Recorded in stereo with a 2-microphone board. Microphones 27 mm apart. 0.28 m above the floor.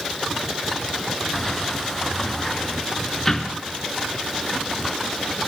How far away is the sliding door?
About 2.5 m.